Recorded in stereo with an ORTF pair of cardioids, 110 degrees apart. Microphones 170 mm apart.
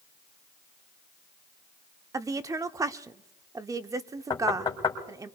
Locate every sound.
2.1 s a woman speaking: 20° right, 0.7 m
4.3 s knocking: 25° left, 2.5 m